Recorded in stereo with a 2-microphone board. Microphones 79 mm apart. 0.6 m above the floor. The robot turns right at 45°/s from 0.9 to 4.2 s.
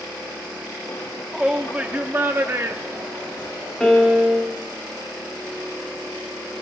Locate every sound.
1.3 s a shout: 170° right, 0.7 m; by 3.7 s 65° right, 0.7 m
3.8 s a piano: 10° left (ahead or behind), 1.3 m; by 4.6 s 5° right (ahead or behind), 1.3 m